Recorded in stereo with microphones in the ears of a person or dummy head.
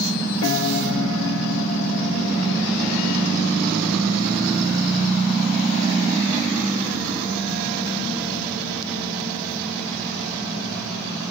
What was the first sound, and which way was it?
A piano, 80° left.